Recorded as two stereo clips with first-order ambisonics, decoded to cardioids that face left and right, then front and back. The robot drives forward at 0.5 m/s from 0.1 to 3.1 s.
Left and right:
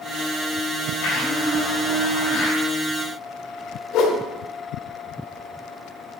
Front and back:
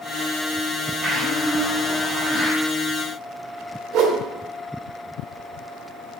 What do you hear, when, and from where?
1.0 s a blender: 110° left, 5 m; by 2.6 s 115° left, 5 m
3.9 s a whoosh: 135° left, 1.3 m